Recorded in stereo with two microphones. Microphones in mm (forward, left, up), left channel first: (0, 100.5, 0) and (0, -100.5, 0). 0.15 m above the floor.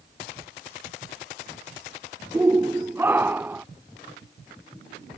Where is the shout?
15° right (ahead or behind); by 3.6 s 10° right (ahead or behind).